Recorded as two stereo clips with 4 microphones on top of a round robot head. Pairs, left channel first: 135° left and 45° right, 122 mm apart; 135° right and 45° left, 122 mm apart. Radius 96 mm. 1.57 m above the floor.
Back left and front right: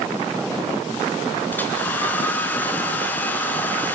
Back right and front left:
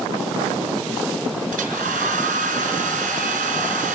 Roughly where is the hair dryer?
Ahead left.